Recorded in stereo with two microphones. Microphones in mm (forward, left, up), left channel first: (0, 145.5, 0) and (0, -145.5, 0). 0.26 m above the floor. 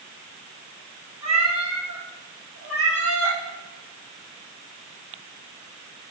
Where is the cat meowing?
70° right (ahead or behind), 1.4 m; by 3.4 s 50° right (ahead or behind), 2 m.